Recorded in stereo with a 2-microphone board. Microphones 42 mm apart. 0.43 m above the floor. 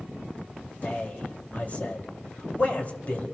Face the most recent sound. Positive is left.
turn(degrees=40)  # may be behind; listen again after turning